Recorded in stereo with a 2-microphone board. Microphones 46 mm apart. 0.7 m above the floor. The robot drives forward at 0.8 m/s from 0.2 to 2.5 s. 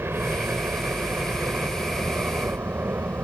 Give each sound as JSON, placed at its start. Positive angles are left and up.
{"t": 0.0, "sound": "a helicopter", "side_deg": -60}